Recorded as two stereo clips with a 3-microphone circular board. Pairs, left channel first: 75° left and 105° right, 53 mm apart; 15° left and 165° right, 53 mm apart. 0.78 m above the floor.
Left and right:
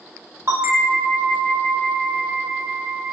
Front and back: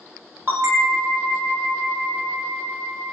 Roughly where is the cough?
No cough in this recording.